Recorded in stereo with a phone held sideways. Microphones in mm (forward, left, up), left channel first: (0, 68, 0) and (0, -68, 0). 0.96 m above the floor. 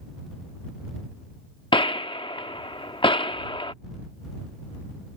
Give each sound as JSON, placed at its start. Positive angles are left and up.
{"t": 1.7, "sound": "a gunshot", "side_deg": 40}